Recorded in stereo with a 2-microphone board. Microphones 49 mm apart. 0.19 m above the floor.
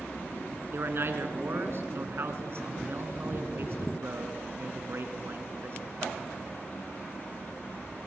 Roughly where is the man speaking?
Right.